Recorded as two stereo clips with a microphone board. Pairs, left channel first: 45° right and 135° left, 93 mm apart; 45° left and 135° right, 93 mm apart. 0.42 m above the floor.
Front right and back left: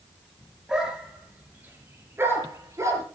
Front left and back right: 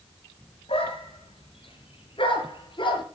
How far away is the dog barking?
About 3 m.